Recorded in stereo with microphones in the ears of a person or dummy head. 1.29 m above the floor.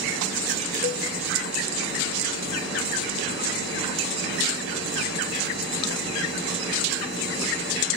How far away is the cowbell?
About 0.5 m.